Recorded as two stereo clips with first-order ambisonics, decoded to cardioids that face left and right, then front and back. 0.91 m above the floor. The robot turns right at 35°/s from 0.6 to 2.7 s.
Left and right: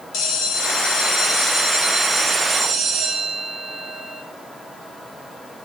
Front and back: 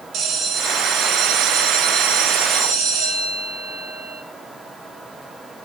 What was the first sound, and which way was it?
A bell, 130° left.